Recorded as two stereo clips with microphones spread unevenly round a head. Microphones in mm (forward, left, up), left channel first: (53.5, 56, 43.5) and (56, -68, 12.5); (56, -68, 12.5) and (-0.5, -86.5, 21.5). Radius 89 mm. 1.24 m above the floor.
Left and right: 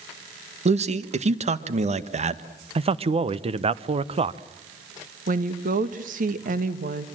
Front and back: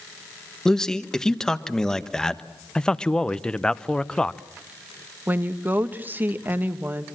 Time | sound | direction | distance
0.7 | a man speaking | 60° right | 1.5 m
2.8 | a man speaking | 55° right | 1.0 m
5.3 | a woman speaking | 100° right | 1.6 m